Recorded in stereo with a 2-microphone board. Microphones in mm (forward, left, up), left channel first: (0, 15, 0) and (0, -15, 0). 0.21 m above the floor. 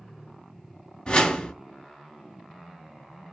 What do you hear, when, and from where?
1.1 s a whoosh: 35° left (ahead or behind), 1.5 m